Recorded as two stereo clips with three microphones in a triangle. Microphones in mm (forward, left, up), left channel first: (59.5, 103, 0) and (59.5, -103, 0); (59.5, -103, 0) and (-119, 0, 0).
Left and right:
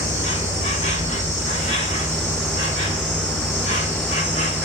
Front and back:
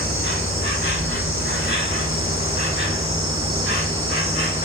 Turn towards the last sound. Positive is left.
turn(degrees=145)